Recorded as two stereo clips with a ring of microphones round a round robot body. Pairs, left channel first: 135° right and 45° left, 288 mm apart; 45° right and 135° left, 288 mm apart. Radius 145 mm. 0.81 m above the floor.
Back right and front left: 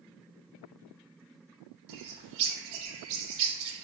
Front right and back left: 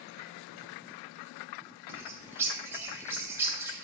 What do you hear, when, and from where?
1.9 s a bird: 55° left, 1.4 m